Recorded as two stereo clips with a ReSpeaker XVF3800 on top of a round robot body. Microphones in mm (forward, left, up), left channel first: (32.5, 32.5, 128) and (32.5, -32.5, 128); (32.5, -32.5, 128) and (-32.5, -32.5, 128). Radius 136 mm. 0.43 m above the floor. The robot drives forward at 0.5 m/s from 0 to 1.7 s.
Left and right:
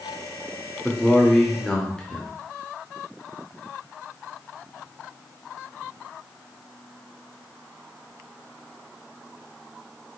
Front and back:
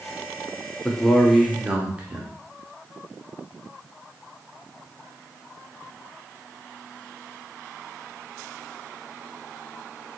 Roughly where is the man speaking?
Ahead left.